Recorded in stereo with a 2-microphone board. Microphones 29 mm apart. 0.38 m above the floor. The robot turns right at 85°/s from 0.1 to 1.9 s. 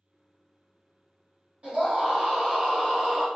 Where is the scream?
50° right (ahead or behind), 1.8 m; by 3.3 s 45° right (ahead or behind), 1.8 m.